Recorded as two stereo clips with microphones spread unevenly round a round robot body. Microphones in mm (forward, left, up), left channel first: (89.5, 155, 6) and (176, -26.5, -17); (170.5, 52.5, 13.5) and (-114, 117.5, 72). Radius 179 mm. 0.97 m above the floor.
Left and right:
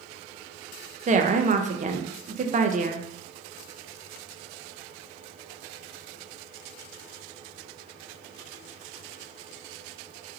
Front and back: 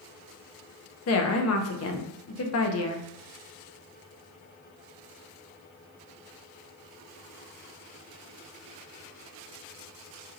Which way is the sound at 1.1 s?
20° right.